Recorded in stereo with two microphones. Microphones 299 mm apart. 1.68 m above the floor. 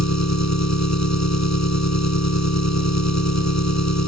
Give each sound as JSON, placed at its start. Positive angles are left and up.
{"t": 0.0, "sound": "an engine running", "side_deg": 65}